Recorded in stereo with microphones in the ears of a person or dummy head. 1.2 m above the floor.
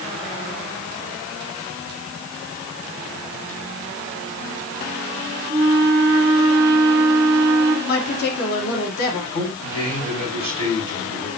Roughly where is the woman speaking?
Left.